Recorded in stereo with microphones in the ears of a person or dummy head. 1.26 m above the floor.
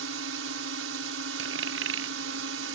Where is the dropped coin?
75° right (ahead or behind).